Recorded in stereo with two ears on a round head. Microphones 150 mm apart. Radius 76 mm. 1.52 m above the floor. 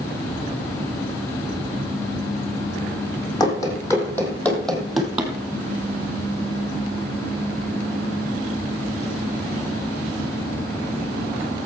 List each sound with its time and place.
3.4 s running footsteps: 20° left (ahead or behind), 3 m; by 5.3 s 10° right (ahead or behind), 2 m